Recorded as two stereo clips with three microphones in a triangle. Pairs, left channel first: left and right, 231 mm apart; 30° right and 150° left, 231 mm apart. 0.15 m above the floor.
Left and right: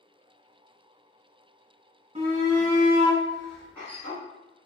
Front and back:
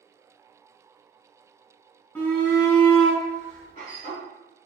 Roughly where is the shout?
Right.